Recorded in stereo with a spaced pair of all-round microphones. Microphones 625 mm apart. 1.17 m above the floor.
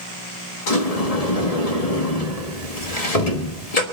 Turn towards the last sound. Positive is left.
turn(degrees=70)  # may be behind; listen again after turning